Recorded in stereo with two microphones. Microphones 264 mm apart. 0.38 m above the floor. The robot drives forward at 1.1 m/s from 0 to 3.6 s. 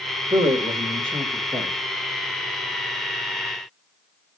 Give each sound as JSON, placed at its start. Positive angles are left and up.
{"t": 0.3, "sound": "a man speaking", "side_deg": -25, "distance_m": 1.4}